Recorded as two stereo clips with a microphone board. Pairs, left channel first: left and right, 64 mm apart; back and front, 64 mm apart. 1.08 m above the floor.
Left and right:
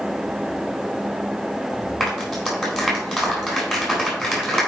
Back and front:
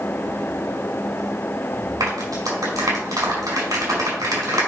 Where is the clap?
5° right, 4 m.